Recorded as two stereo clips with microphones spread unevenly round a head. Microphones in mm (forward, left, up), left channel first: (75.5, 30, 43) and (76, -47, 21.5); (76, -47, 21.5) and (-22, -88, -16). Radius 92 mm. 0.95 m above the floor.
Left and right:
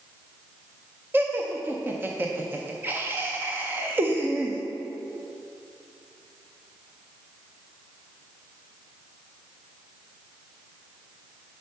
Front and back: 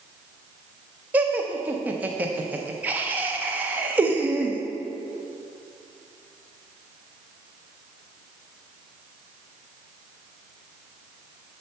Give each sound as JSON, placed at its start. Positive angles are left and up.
{"t": 1.1, "sound": "laughter", "azimuth_deg": -115, "distance_m": 0.5}